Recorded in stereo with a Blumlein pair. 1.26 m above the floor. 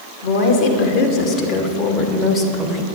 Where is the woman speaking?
45° left, 3 m; by 2.9 s 5° left, 1.7 m.